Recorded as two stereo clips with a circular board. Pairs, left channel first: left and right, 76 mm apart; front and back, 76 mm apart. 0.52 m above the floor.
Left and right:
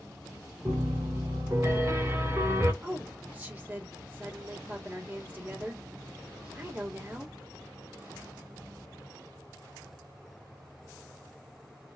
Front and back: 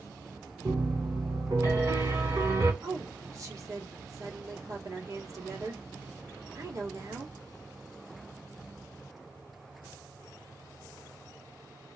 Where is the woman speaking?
150° right, 1.9 m.